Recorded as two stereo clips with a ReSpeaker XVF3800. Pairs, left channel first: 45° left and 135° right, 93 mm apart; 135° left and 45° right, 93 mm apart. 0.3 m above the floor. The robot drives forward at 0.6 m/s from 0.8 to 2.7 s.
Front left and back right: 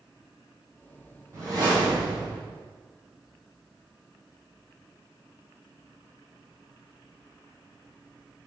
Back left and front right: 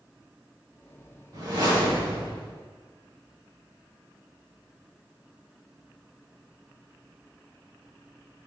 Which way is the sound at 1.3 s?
85° right.